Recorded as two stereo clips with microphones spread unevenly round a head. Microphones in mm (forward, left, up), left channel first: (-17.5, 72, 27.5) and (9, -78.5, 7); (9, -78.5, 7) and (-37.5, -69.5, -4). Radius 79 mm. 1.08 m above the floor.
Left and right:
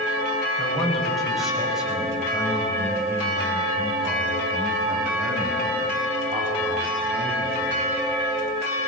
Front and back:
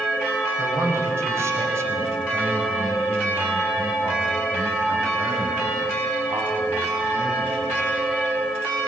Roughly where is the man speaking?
Behind.